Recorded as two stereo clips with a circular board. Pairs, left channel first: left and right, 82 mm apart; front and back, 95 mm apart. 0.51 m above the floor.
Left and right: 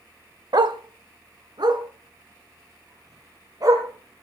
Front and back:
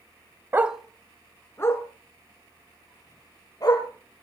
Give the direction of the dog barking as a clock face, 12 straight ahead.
4 o'clock.